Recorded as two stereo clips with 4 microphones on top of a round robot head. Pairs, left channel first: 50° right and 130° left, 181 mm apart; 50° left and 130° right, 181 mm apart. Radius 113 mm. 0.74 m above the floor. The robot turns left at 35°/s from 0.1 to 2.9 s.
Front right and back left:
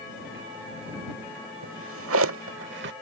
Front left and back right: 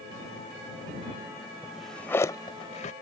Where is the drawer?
150° left; by 2.9 s 105° left.